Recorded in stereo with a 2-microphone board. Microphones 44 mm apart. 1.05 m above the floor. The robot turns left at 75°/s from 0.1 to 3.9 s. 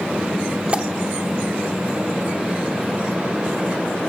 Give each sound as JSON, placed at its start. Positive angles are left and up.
{"t": 0.7, "sound": "a pop", "side_deg": -30, "distance_m": 0.9}